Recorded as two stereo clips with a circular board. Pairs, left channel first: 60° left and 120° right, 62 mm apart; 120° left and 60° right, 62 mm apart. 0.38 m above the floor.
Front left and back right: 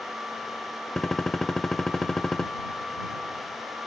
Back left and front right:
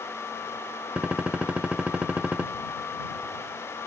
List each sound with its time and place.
1.0 s a gunshot: 15° right